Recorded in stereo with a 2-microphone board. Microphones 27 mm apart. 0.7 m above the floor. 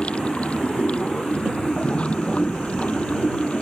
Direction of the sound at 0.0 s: 45° left (ahead or behind).